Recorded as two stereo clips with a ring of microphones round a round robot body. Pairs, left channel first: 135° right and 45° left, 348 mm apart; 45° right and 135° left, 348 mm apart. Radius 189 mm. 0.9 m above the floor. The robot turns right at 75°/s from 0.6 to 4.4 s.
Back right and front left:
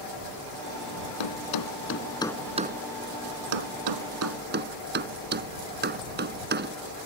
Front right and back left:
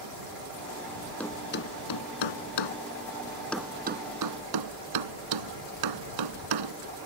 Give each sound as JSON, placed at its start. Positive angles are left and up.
{"t": 1.2, "sound": "a thud", "azimuth_deg": -130}